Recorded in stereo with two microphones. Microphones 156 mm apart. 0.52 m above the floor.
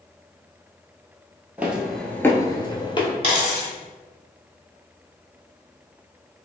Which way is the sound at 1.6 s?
10° right (ahead or behind).